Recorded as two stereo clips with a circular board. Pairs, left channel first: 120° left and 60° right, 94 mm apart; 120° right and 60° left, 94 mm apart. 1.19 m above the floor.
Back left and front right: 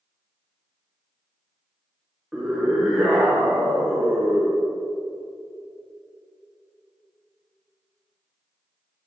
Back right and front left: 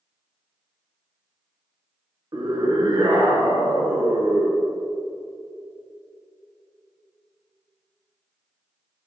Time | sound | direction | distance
2.3 | a scream | 20° left | 0.9 m